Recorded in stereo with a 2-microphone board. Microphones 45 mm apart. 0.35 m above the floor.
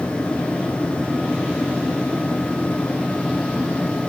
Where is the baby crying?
I don't hear a baby crying.